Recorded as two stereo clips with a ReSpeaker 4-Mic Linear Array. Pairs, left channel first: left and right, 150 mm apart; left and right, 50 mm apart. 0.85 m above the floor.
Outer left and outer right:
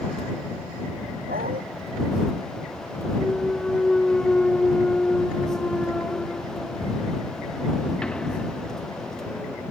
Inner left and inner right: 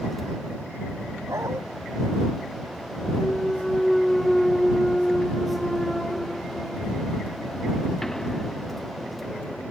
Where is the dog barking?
80° right.